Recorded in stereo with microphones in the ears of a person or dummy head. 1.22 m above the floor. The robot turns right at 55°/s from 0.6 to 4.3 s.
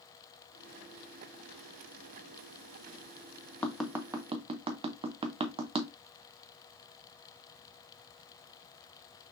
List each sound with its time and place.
3.6 s tapping: 5° left (ahead or behind), 0.5 m; by 5.9 s 30° right (ahead or behind), 0.5 m